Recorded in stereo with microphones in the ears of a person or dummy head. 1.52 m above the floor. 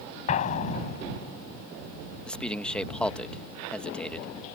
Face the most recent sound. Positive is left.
turn(degrees=10)  # may be behind; listen again after turning